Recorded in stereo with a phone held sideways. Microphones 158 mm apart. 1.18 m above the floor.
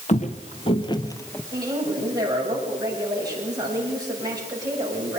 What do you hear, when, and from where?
0.1 s footsteps: 50° left (ahead or behind), 1.7 m; by 1.4 s 10° left (ahead or behind), 1.2 m
1.5 s a woman speaking: 25° right (ahead or behind), 8 m